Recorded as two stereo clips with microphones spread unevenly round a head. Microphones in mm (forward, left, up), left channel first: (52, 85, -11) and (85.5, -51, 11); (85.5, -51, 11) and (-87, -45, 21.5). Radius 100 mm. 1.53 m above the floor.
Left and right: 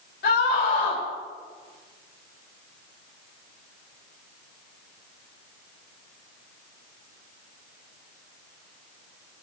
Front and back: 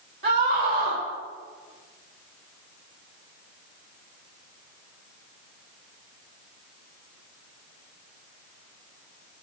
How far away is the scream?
About 4.5 m.